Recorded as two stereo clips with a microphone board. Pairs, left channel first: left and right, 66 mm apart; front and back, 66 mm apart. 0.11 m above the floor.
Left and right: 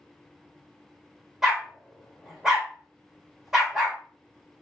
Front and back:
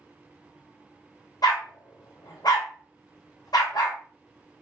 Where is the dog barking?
5° right, 1.7 m.